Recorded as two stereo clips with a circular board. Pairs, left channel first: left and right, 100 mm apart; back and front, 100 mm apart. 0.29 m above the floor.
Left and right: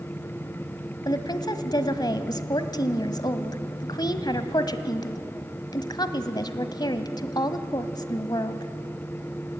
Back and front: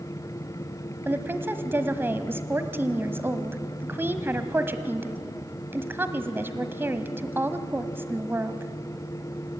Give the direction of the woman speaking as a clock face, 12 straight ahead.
10 o'clock.